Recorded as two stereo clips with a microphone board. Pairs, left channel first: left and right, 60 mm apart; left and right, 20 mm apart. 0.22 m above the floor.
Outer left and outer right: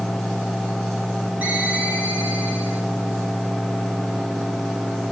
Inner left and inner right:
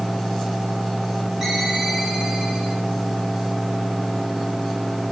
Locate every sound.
1.4 s a ringtone: 20° right (ahead or behind), 9 m